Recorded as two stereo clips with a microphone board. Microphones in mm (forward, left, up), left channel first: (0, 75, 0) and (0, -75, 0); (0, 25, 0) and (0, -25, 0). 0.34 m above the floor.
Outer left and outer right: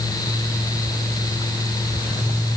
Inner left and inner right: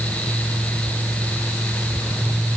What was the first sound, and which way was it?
Only background noise.